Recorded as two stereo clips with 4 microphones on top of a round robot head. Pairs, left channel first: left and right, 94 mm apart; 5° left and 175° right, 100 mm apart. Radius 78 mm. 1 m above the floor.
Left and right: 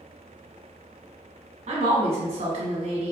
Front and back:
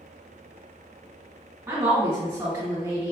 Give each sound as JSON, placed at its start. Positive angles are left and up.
{"t": 1.7, "sound": "a woman speaking", "azimuth_deg": -110, "distance_m": 1.2}